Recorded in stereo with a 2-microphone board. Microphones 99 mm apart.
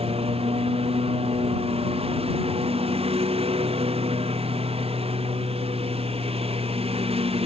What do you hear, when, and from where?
0.0 s a lawn mower: 75° right (ahead or behind)